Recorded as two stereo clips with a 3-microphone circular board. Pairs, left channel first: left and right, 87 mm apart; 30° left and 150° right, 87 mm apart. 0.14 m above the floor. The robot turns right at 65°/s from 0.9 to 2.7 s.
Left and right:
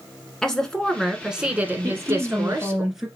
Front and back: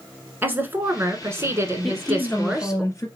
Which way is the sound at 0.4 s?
170° left.